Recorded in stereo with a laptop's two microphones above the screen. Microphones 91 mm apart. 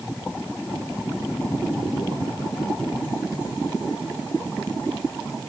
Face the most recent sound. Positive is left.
No sound to turn to.